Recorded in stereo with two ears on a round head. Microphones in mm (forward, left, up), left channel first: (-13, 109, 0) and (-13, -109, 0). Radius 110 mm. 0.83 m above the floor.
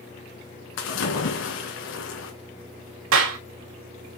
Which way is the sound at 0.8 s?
60° left (ahead or behind).